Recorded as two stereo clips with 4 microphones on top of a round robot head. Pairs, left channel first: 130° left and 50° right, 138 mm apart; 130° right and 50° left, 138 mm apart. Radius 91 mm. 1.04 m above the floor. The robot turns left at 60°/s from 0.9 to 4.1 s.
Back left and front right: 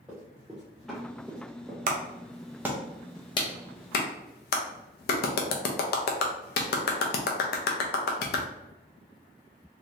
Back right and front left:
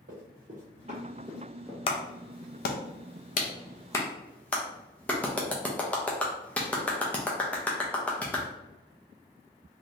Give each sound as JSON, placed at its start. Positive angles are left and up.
{"t": 0.1, "sound": "running footsteps", "azimuth_deg": 35, "distance_m": 1.6}
{"t": 1.9, "sound": "a clap", "azimuth_deg": -80, "distance_m": 0.5}